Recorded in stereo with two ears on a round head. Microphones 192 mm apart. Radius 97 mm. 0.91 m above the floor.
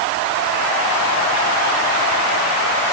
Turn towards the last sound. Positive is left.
No sound to turn to.